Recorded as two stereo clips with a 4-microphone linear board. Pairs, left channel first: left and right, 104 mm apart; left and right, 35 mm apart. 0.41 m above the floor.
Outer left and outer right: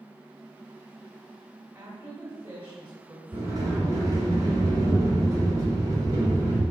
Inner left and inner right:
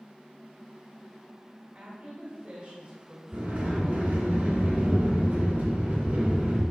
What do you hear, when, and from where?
1.8 s a woman speaking: 25° right (ahead or behind), 1.5 m
3.3 s a sliding door: 35° right (ahead or behind), 3 m